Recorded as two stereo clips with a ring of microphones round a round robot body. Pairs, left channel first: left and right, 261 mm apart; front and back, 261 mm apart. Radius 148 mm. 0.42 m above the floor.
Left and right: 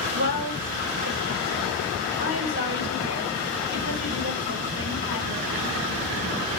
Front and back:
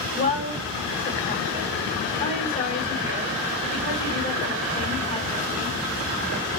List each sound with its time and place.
0.1 s a woman speaking: 65° right, 1.9 m